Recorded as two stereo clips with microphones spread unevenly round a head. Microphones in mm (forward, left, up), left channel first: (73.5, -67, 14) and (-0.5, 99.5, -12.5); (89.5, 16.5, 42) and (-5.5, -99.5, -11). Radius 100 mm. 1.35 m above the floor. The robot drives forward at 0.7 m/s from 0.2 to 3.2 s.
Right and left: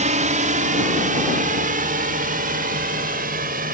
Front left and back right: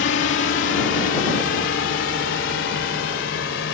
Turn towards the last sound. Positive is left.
turn(degrees=70)